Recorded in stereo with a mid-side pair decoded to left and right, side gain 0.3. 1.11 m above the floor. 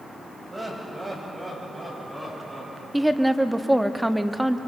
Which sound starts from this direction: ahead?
A woman speaking, at 2.9 s.